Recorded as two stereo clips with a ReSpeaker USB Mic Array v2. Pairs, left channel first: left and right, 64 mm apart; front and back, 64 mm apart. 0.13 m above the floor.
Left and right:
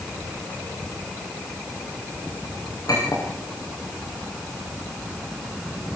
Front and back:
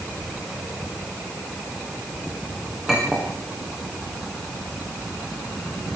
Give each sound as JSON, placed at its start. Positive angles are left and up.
{"t": 2.9, "sound": "a clink", "azimuth_deg": 100, "distance_m": 8.5}